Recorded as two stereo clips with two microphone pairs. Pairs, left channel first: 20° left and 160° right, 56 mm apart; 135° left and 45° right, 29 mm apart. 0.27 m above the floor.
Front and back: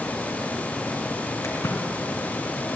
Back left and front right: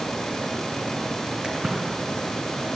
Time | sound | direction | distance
1.4 | a splash | 10° left | 3 m